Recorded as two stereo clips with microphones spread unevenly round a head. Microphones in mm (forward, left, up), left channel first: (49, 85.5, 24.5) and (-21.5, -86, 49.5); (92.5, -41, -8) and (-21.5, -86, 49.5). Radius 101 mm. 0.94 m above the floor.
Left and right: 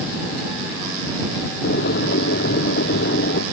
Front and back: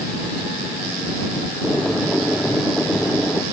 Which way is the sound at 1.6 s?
115° left.